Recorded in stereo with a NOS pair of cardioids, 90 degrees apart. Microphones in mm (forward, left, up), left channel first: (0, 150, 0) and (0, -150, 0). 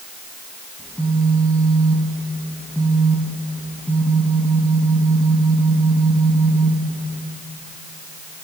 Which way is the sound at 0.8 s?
5° left.